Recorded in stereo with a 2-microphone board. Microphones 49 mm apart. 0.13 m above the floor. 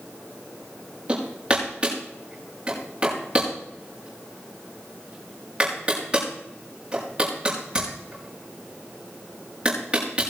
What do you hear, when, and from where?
1.1 s hammering: 20° right (ahead or behind), 5.5 m